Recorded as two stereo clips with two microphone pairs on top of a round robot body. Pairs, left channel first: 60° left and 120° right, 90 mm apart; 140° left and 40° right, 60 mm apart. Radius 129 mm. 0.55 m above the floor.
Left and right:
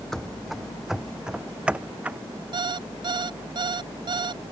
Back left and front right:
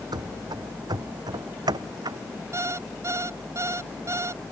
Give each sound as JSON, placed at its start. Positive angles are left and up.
{"t": 0.1, "sound": "running footsteps", "azimuth_deg": -25}
{"t": 2.5, "sound": "an alarm clock", "azimuth_deg": -80}